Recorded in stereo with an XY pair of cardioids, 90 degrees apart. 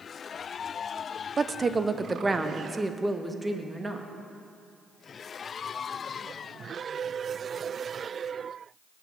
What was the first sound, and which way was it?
A woman speaking, 40° right.